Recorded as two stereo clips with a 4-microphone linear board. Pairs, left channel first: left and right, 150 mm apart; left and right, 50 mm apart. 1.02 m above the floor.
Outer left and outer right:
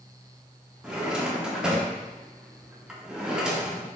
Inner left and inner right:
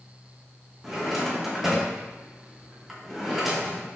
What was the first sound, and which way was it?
A drawer, 5° right (ahead or behind).